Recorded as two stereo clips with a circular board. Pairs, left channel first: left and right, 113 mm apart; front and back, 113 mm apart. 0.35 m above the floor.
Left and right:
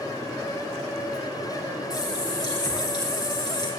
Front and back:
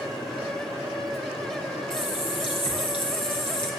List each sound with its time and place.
1.9 s a running tap: 40° left, 4 m